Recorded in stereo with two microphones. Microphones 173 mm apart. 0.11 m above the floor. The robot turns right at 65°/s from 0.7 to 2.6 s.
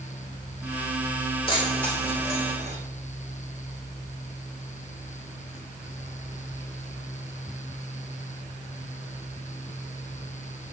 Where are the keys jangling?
30° left (ahead or behind), 4.5 m; by 2.8 s 40° right (ahead or behind), 4.5 m.